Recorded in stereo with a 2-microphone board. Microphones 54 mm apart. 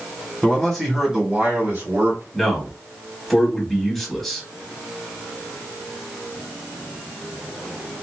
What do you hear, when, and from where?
0.4 s a man speaking: 15° left (ahead or behind), 1.2 m; by 2.2 s 40° right (ahead or behind), 1.6 m
2.3 s a man speaking: 5° left (ahead or behind), 1.0 m